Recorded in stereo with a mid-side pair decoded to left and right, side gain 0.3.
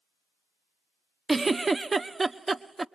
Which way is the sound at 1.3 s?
35° right.